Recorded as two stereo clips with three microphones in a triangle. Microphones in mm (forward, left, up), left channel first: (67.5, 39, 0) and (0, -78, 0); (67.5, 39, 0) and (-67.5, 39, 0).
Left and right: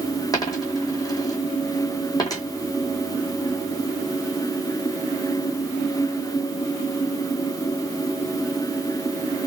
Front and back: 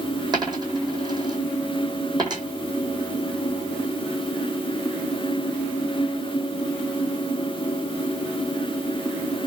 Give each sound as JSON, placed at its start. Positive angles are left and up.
{"t": 0.3, "sound": "a dropped coin", "azimuth_deg": 120, "distance_m": 2.0}